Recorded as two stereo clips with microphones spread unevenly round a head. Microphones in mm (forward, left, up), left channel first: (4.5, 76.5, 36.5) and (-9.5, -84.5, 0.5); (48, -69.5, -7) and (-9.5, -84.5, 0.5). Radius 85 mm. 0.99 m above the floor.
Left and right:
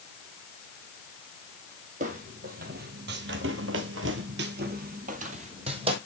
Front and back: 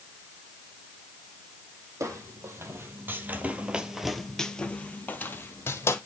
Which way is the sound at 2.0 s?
145° right.